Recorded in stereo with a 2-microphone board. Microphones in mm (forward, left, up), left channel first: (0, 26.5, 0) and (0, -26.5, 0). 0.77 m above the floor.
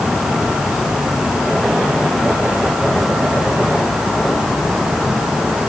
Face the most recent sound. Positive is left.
No sound to turn to.